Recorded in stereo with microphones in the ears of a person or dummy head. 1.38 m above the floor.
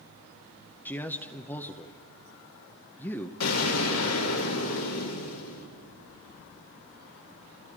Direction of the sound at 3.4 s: 90° left.